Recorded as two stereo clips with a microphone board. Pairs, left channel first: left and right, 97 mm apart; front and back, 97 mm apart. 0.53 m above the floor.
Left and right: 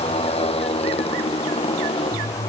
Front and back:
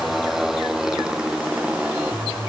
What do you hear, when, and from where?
0.0 s a motorcycle: 90° left; by 2.5 s 105° left